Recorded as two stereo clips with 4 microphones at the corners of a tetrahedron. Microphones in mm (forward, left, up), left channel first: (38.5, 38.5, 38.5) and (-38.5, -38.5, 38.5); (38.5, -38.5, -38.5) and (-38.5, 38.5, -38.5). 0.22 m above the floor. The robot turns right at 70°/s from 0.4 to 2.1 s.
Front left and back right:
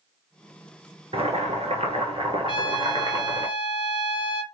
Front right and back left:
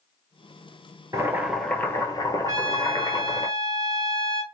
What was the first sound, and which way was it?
Boiling, 165° right.